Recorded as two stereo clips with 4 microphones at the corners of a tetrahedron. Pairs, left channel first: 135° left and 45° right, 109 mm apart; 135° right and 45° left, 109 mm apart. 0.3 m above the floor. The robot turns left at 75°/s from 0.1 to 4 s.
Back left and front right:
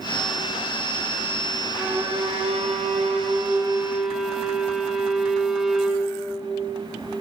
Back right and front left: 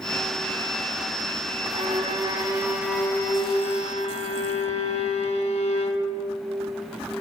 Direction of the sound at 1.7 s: 40° left.